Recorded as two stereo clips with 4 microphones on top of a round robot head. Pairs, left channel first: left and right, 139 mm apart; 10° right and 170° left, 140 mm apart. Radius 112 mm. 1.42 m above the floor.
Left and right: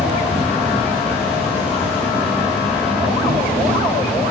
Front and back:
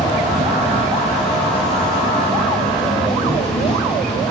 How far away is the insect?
About 4 m.